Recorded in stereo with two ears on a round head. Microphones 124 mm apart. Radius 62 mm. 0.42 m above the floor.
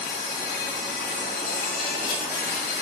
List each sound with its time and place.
0.0 s an insect: 70° left (ahead or behind), 1.8 m